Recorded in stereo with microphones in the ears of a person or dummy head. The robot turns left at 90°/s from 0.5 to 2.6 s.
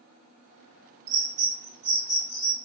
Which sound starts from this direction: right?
A bird, at 1.1 s.